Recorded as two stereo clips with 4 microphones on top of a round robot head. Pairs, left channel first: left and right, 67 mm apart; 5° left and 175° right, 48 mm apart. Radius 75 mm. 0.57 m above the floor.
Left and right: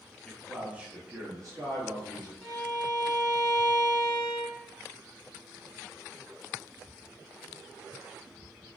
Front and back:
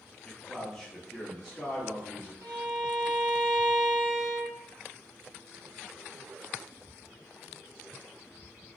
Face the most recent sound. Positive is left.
turn(degrees=180)